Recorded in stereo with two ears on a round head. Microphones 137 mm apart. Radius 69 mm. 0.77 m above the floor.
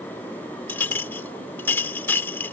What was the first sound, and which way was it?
A clink, 15° left (ahead or behind).